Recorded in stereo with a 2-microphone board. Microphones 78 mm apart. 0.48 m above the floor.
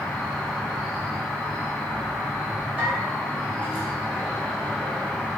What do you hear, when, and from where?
0.0 s an insect: 10° left (ahead or behind), 1.2 m
2.8 s a bell: 20° right (ahead or behind), 2.0 m